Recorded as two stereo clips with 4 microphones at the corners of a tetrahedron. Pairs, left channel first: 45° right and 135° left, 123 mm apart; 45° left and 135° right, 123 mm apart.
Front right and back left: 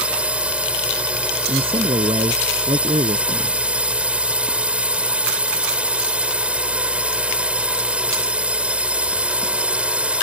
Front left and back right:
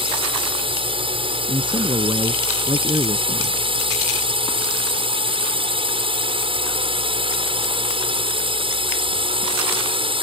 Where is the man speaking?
Straight behind.